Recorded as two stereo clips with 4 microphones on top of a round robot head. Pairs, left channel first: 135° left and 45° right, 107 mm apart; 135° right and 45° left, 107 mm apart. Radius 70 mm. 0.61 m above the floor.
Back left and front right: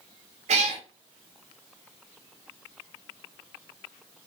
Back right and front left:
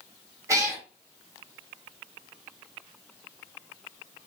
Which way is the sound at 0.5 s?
20° right.